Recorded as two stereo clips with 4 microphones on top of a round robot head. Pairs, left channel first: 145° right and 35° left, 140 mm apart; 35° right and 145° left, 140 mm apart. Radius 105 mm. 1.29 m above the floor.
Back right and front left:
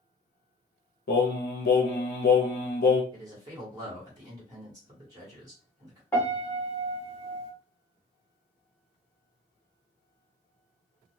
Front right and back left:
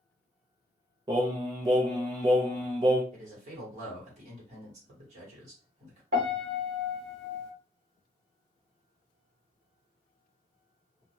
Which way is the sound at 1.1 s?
155° right.